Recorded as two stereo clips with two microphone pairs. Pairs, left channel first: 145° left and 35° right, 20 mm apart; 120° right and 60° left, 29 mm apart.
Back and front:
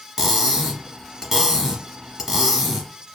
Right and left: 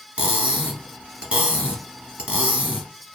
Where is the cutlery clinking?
35° left, 1.0 m.